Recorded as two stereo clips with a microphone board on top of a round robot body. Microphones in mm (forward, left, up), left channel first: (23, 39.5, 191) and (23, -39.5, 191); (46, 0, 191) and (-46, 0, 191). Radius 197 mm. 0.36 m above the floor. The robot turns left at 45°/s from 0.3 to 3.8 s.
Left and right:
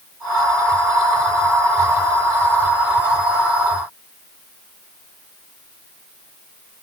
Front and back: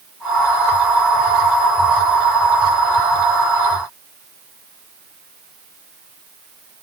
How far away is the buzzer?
I don't hear a buzzer.